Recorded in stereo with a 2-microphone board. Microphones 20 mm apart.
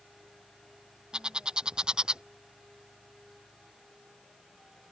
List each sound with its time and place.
1.1 s a bird: 40° right (ahead or behind)